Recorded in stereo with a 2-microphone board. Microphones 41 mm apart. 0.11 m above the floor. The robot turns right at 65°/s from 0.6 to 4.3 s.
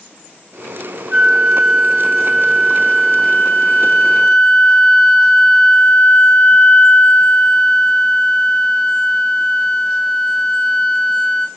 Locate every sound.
1.1 s a flute: 130° right, 0.7 m; by 11.5 s 80° left, 0.7 m